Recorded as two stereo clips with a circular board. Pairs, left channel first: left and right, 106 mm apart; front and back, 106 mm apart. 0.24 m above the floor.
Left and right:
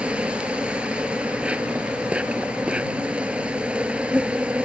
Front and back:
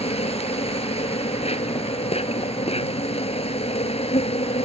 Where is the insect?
10° right.